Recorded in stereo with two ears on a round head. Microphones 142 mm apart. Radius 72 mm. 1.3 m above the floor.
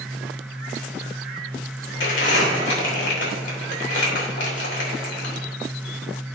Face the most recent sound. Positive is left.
turn(degrees=80)